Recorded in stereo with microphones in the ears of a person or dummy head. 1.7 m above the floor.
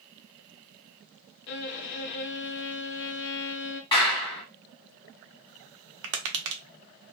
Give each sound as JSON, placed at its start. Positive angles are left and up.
{"t": 1.5, "sound": "a violin", "side_deg": 60, "distance_m": 0.6}
{"t": 3.9, "sound": "a clap", "side_deg": 25, "distance_m": 1.0}
{"t": 6.0, "sound": "tapping", "side_deg": -70, "distance_m": 0.6}